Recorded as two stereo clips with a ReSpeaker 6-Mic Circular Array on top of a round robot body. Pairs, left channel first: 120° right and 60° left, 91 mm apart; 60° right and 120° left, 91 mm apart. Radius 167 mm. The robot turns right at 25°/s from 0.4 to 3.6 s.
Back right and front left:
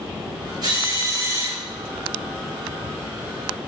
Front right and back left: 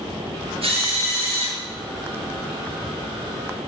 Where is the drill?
105° left, 6 m; by 1.6 s 130° left, 6 m.